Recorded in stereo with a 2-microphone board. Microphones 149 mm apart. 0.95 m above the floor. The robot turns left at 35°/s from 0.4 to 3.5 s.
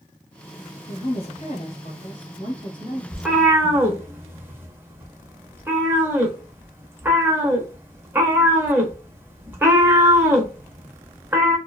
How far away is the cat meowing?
About 0.6 m.